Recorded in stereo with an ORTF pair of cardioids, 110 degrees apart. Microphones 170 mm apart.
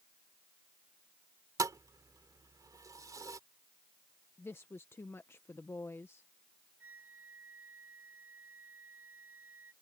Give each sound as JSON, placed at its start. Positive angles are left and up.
{"t": 1.6, "sound": "a thud", "azimuth_deg": -20}
{"t": 4.4, "sound": "a woman speaking", "azimuth_deg": 15}
{"t": 6.8, "sound": "a flute", "azimuth_deg": -10}